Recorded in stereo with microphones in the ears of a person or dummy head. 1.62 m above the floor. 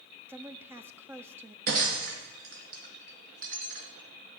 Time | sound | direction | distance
0.3 | a woman speaking | 15° right (ahead or behind) | 0.7 m
1.7 | breaking glass | 50° right (ahead or behind) | 3 m